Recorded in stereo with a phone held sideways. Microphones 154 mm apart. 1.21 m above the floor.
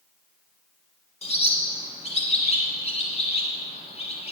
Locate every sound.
1.2 s a bird: 45° left (ahead or behind), 1.7 m